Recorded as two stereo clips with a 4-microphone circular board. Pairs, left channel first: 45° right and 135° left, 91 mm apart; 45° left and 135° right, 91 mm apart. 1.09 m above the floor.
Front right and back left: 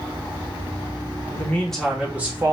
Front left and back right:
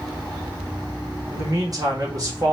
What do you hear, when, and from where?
1.3 s a man speaking: 100° right, 1.0 m; by 2.5 s 175° right, 1.1 m